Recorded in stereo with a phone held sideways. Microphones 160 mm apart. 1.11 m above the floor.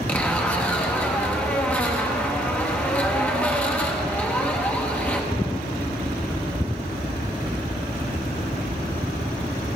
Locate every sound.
0.1 s a zipper: 10° left (ahead or behind), 0.9 m